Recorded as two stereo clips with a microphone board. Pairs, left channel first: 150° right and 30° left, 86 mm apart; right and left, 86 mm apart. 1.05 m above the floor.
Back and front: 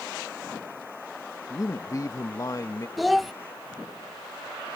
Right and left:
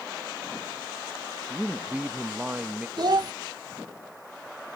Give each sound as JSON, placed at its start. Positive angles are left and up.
{"t": 1.5, "sound": "a man speaking", "azimuth_deg": 165}
{"t": 3.0, "sound": "a child speaking", "azimuth_deg": 120}